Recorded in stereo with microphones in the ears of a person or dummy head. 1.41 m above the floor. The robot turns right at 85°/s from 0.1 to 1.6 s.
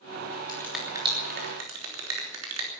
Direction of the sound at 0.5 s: 20° left (ahead or behind).